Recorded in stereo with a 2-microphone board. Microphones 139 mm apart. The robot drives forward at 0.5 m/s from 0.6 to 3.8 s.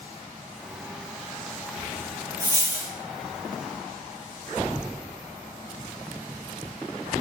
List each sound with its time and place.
2.4 s a dropped coin: 20° right (ahead or behind), 0.9 m; by 2.9 s 15° right (ahead or behind), 1.1 m